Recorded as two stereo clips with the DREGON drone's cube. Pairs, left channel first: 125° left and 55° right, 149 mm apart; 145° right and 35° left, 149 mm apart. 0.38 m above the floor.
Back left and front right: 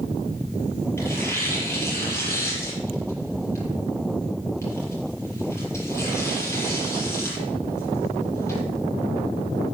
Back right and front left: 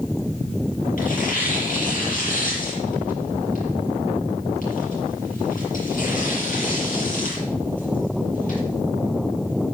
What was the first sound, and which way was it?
Tearing paper, 165° right.